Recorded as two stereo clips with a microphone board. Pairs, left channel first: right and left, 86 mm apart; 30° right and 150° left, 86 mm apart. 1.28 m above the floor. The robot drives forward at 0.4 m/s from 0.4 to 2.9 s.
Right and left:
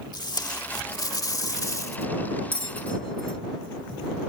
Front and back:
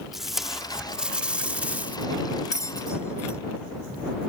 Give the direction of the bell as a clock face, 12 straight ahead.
3 o'clock.